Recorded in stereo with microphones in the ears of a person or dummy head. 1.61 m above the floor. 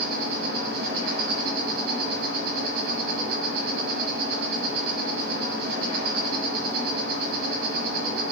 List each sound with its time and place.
0.0 s an insect: 45° right (ahead or behind), 1.3 m